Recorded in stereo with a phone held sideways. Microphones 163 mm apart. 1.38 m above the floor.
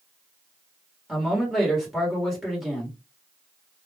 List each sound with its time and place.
1.1 s a man speaking: centre (ahead or behind), 1.2 m